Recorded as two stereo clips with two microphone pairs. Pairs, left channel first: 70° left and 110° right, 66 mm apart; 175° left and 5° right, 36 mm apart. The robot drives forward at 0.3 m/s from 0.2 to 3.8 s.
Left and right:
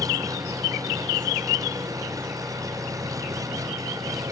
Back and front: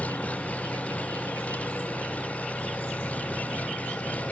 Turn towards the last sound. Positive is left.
turn(degrees=-145)